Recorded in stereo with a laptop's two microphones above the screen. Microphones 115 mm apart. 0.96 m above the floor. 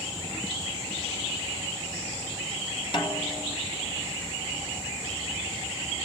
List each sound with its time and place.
2.9 s a snare drum: 45° left (ahead or behind), 3 m